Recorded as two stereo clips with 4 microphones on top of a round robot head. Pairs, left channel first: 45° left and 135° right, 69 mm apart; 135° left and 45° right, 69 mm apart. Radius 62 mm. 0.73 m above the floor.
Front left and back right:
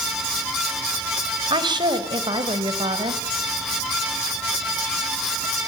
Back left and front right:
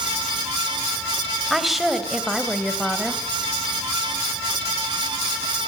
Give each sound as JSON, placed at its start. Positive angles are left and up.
{"t": 1.5, "sound": "a woman speaking", "azimuth_deg": -135, "distance_m": 3.5}